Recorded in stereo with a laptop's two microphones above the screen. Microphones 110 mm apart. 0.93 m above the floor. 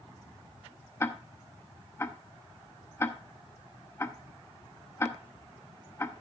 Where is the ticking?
20° left (ahead or behind), 0.7 m.